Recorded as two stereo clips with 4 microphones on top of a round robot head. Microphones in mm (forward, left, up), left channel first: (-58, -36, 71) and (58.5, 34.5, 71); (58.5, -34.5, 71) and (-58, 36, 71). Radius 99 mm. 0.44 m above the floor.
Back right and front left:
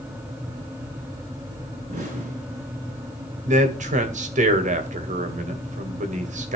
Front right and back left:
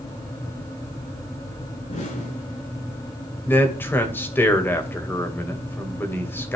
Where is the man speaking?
40° left, 2.5 m.